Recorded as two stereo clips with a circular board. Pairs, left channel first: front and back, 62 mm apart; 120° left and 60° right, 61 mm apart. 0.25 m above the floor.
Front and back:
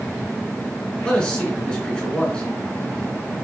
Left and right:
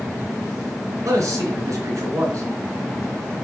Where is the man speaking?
75° right, 3.5 m.